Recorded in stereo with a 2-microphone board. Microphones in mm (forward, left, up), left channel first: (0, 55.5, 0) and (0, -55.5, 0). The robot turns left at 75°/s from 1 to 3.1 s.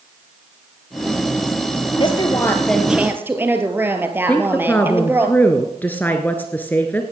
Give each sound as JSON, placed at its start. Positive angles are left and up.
{"t": 2.0, "sound": "a woman speaking", "azimuth_deg": 65, "distance_m": 2.0}
{"t": 4.3, "sound": "a woman speaking", "side_deg": 15, "distance_m": 1.2}